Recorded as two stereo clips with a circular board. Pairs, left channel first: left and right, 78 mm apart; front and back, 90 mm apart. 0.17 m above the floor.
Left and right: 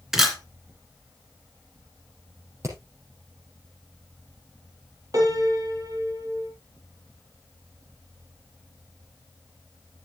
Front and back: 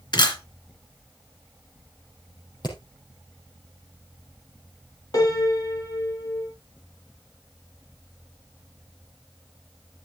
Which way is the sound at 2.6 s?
40° right.